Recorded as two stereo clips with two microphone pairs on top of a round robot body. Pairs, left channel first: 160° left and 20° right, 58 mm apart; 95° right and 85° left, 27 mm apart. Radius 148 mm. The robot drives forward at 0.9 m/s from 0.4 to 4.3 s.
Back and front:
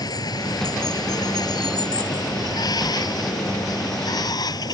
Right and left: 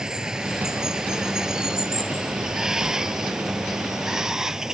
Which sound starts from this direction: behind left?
Running water, at 0.0 s.